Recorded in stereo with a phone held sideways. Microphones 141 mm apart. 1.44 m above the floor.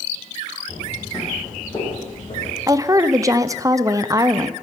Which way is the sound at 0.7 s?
15° left (ahead or behind).